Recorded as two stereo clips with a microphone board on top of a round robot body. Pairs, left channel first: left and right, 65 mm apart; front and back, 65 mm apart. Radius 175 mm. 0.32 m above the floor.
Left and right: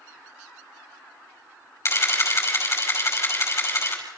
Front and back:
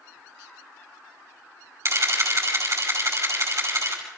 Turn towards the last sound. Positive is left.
turn(degrees=135)